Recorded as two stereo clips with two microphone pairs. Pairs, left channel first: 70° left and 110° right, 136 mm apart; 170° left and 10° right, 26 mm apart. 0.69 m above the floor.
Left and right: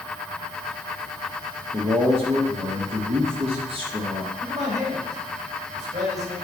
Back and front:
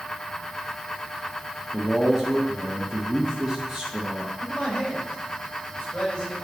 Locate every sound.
1.7 s a man speaking: 85° right, 1.3 m
4.4 s a man speaking: 135° right, 4.5 m